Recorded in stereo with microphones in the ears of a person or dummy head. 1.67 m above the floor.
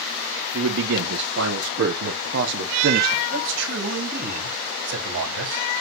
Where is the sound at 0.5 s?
85° right, 2 m; by 3.2 s 50° right (ahead or behind), 1.1 m.